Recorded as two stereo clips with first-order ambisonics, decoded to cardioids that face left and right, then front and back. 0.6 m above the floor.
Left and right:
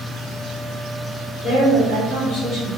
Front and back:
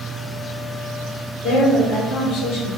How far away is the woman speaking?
About 1.5 m.